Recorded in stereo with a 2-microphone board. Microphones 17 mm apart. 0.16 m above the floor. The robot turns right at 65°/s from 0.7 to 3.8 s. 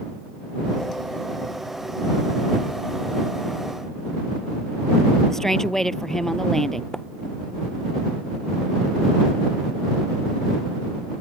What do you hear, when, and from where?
5.3 s a woman speaking: 25° left (ahead or behind)
6.9 s a splash: 30° left (ahead or behind)